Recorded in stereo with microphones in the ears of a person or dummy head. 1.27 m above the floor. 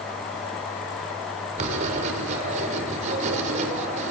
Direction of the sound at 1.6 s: 40° right (ahead or behind).